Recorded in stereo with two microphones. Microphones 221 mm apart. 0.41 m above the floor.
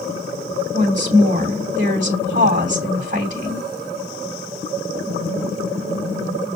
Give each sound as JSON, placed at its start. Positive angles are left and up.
{"t": 0.7, "sound": "a woman speaking", "side_deg": -35, "distance_m": 3.0}